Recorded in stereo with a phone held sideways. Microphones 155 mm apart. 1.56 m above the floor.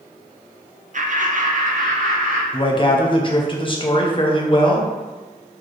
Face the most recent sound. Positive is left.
turn(degrees=35)  # may be behind; listen again after turning